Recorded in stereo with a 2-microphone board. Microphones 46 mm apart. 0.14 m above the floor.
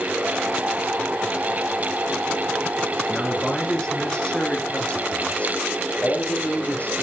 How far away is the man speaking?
About 2 m.